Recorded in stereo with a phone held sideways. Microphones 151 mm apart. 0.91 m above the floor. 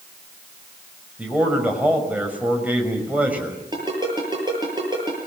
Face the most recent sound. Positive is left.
turn(degrees=-30)  # may be behind; listen again after turning